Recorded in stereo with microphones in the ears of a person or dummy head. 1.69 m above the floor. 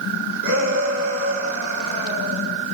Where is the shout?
80° right, 9 m; by 2.5 s 85° right, 9 m.